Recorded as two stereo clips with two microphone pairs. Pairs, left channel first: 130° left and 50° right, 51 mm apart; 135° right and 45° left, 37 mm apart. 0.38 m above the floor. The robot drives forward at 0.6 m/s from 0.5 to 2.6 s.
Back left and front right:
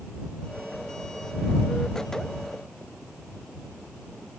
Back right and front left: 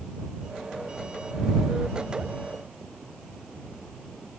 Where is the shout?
No shout in this recording.